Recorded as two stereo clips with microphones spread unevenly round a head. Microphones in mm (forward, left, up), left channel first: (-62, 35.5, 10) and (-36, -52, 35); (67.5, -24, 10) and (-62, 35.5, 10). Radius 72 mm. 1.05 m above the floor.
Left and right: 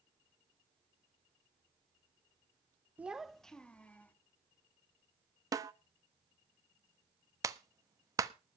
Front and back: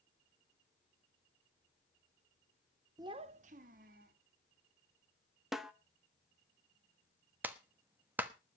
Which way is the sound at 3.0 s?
140° right.